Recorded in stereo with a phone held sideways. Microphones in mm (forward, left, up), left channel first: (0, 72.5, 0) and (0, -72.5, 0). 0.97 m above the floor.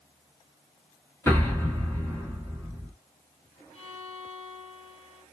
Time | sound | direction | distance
1.3 | an explosion | 15° left (ahead or behind) | 1.6 m
3.7 | a violin | 45° left (ahead or behind) | 3.5 m